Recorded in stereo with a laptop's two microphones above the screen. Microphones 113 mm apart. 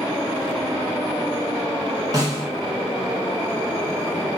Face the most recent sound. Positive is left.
turn(degrees=-30)  # may be behind; listen again after turning